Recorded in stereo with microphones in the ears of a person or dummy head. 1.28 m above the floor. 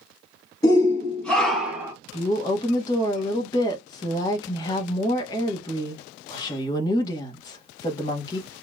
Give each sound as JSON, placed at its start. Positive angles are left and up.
{"t": 0.6, "sound": "a shout", "side_deg": 25, "distance_m": 1.7}
{"t": 2.1, "sound": "a woman speaking", "side_deg": 25, "distance_m": 1.1}